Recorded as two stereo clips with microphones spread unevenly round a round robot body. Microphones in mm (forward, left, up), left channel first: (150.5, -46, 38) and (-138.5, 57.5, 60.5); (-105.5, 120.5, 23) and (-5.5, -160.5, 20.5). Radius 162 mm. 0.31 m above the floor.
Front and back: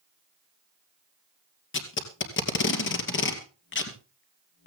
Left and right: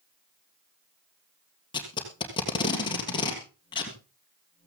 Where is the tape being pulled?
35° left, 2.5 m.